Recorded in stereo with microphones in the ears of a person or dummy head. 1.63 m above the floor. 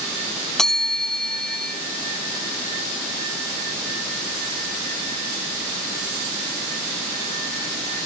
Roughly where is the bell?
Centre.